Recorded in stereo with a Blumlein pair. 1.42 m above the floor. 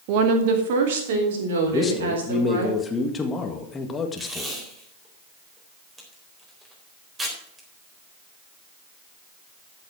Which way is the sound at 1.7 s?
15° left.